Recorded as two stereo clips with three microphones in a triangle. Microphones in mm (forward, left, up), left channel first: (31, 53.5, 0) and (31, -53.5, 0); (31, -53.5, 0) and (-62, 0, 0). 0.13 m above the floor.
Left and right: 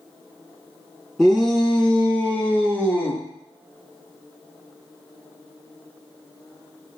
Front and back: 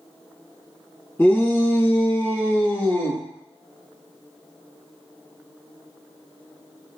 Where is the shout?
Straight ahead, 1.9 m; by 3.2 s 25° left, 2.5 m.